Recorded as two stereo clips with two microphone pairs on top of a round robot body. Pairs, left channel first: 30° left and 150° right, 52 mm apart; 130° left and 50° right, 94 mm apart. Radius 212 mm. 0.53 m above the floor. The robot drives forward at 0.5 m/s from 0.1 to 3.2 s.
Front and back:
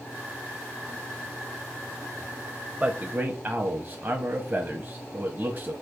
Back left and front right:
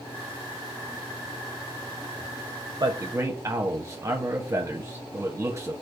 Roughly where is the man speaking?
Right.